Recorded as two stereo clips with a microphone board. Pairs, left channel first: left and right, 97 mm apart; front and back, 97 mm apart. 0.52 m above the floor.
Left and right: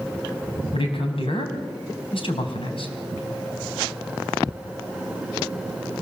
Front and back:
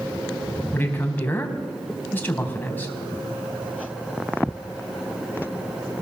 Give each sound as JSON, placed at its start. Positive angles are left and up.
{"t": 0.7, "sound": "a man speaking", "azimuth_deg": 70, "distance_m": 4.5}